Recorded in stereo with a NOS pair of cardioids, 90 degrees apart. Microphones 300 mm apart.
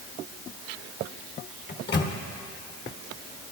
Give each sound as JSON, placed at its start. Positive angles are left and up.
{"t": 1.7, "sound": "a microwave", "azimuth_deg": 35, "distance_m": 1.2}